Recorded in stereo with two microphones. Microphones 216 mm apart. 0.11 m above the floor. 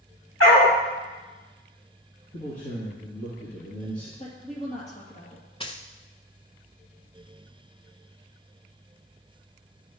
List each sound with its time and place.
0.4 s a dog barking: 80° left, 3 m
2.3 s a man speaking: 40° left (ahead or behind), 3 m
4.2 s a woman speaking: 35° left (ahead or behind), 2.5 m
5.6 s a dropped coin: 25° left (ahead or behind), 0.7 m